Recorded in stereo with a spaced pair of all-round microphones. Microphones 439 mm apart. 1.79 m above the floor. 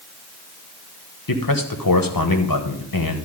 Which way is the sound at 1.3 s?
50° left (ahead or behind).